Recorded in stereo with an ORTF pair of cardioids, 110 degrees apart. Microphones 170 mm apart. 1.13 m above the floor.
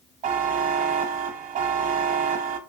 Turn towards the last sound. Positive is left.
turn(degrees=-50)